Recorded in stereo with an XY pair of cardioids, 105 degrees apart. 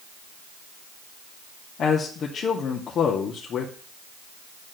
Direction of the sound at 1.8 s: 55° left.